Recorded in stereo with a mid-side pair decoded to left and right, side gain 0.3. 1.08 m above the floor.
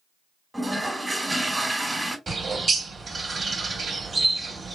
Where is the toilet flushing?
15° right, 0.9 m.